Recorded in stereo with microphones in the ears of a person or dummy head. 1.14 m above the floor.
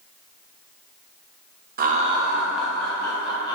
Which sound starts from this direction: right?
Laughter, at 1.8 s.